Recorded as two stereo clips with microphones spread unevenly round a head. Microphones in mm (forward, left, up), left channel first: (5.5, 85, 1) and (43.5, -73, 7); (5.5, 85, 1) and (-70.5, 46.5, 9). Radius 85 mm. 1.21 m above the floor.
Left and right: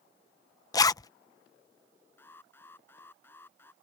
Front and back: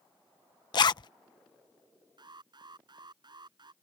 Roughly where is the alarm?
Behind.